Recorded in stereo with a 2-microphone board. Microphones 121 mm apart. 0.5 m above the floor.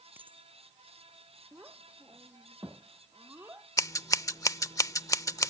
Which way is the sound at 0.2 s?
15° right (ahead or behind).